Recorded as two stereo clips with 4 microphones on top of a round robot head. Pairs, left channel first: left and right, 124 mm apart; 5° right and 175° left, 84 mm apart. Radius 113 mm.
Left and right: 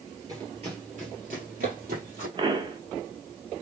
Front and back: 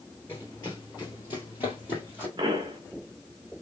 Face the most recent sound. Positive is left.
turn(degrees=-140)